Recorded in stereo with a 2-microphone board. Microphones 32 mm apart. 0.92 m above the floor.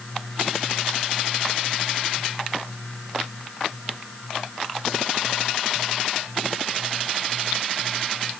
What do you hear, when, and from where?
Only background noise.